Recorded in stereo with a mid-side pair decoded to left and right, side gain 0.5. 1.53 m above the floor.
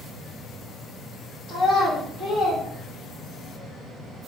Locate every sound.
1.5 s a child speaking: 70° left, 1.5 m